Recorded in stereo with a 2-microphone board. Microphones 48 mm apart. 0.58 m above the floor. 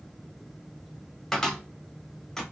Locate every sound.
1.3 s a cupboard door: 10° left (ahead or behind), 1.1 m